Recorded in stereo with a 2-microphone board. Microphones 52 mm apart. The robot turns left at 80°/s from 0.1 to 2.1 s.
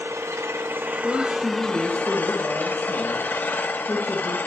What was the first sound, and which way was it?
An engine running, 65° right.